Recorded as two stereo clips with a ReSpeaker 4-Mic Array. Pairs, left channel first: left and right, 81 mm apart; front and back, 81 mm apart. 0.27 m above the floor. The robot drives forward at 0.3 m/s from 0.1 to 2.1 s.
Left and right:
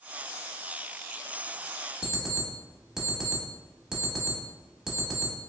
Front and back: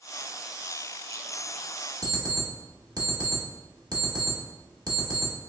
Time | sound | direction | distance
2.0 | an alarm clock | 175° right | 1.0 m